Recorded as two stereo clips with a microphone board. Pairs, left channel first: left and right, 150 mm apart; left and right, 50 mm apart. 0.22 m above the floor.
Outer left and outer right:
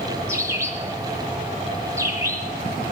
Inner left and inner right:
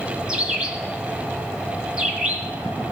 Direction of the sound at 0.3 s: 20° right (ahead or behind).